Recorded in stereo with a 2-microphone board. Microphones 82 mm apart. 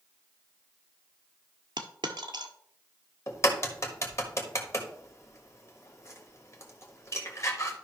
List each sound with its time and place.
1.8 s a dropped coin: 80° right, 0.9 m
3.3 s a crack: 40° left (ahead or behind), 1.4 m